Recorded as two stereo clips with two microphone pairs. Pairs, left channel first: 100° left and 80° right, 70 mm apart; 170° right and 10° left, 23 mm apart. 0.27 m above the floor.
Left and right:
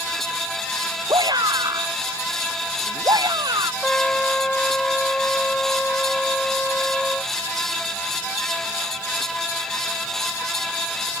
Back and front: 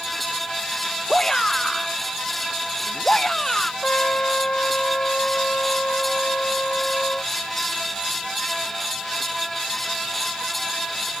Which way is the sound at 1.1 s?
100° right.